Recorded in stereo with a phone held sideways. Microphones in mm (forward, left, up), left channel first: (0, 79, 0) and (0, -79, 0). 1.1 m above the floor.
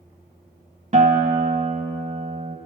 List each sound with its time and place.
0.9 s a guitar: 45° right (ahead or behind), 0.7 m